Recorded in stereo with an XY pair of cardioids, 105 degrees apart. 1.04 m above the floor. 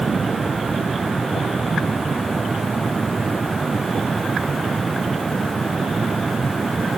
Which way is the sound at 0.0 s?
25° right.